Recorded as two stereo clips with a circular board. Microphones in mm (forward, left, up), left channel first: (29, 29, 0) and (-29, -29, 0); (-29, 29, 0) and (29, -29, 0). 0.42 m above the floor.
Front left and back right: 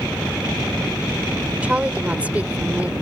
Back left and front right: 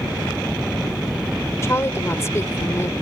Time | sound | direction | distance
1.6 | a woman speaking | 165° left | ?